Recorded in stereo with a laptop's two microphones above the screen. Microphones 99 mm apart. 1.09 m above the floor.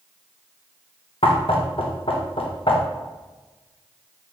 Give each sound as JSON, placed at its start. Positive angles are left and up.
{"t": 1.2, "sound": "knocking", "side_deg": 70, "distance_m": 0.6}